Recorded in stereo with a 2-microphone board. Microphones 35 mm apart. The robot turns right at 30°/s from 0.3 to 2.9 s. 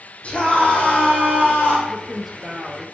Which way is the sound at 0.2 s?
40° left.